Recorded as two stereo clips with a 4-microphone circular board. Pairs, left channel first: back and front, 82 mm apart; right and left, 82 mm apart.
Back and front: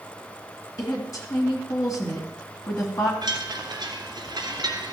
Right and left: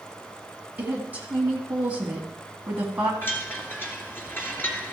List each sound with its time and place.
0.8 s a woman speaking: 155° left, 2.5 m
3.2 s a chime: 25° right, 2 m